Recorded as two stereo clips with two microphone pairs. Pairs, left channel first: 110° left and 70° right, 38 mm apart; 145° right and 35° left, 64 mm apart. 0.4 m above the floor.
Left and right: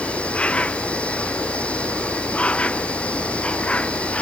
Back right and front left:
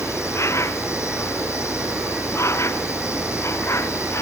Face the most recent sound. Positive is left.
turn(degrees=170)